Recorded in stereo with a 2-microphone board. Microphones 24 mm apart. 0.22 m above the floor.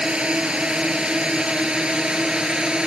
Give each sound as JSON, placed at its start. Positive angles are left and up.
{"t": 0.0, "sound": "a drone", "side_deg": -45}